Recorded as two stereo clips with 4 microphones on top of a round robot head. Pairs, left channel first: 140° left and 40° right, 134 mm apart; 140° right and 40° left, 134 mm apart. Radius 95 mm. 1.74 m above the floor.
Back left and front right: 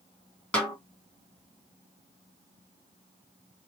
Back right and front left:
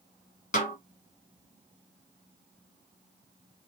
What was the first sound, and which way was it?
A snare drum, 140° right.